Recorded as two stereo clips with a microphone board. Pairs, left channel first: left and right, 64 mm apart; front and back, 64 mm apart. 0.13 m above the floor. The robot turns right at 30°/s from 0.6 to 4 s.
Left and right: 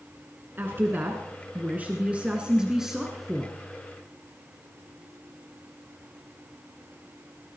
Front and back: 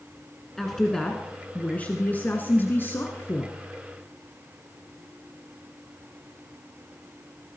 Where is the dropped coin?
I don't hear a dropped coin.